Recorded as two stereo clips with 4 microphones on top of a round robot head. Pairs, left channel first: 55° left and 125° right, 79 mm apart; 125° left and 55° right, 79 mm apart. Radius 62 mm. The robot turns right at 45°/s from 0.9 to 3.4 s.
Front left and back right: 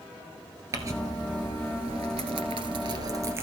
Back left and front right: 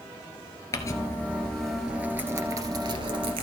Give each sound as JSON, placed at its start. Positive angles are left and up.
{"t": 0.7, "sound": "crumpling", "azimuth_deg": 180, "distance_m": 1.7}